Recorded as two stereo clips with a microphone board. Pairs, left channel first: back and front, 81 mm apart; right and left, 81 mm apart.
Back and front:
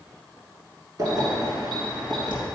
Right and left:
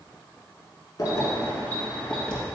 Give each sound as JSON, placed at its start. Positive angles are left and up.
{"t": 1.0, "sound": "keys jangling", "azimuth_deg": -45, "distance_m": 1.6}